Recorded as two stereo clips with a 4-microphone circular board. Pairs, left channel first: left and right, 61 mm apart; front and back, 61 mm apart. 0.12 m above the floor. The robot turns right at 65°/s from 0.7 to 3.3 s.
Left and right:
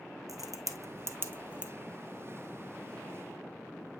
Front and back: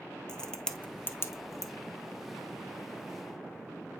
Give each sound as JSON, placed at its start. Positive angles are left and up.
{"t": 0.3, "sound": "a crack", "azimuth_deg": -75, "distance_m": 1.2}